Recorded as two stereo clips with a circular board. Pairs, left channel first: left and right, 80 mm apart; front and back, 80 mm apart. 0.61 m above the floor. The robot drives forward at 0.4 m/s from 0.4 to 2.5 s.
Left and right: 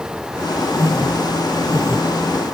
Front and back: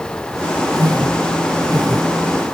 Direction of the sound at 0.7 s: 140° right.